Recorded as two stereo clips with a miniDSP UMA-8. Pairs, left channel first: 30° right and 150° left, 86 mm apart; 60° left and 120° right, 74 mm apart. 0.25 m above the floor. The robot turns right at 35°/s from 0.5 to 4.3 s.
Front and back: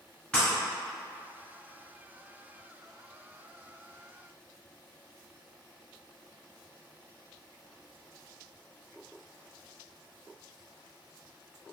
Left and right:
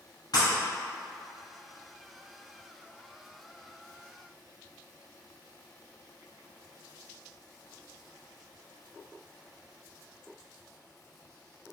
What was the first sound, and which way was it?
Breaking glass, 45° left.